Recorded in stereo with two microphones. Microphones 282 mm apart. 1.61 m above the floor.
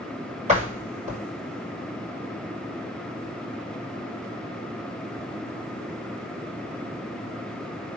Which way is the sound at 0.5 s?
25° right (ahead or behind).